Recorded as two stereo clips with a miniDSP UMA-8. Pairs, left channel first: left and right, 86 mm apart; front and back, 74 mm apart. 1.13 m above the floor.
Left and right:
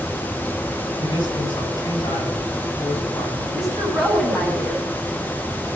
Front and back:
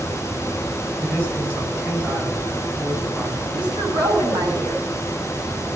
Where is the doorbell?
No doorbell in this recording.